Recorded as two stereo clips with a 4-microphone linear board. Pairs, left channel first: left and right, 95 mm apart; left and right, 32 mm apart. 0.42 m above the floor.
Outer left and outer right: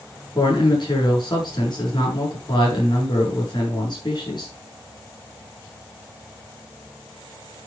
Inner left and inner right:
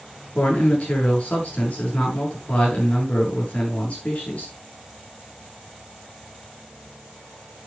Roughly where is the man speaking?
Left.